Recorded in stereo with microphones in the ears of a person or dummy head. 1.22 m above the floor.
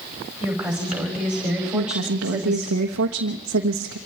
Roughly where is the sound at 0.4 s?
Centre.